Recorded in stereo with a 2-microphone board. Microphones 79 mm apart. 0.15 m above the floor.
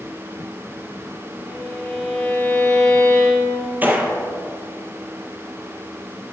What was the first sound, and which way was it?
A violin, 10° left (ahead or behind).